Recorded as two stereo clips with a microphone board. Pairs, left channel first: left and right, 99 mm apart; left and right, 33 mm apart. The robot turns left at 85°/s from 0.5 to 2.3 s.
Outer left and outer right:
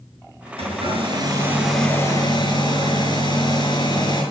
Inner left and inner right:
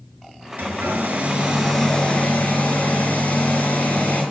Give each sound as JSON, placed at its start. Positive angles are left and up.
{"t": 0.6, "sound": "a hair dryer", "azimuth_deg": -80, "distance_m": 5.5}